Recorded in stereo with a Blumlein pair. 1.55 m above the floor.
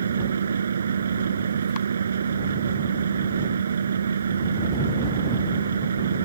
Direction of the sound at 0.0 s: 70° right.